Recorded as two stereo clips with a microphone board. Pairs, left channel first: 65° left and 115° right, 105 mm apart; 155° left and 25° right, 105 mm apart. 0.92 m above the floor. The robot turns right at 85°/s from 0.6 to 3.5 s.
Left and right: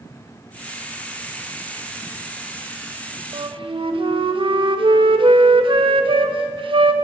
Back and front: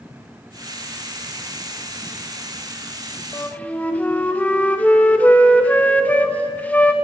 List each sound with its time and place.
3.3 s a flute: 145° right, 1.3 m; by 6.9 s 130° right, 1.3 m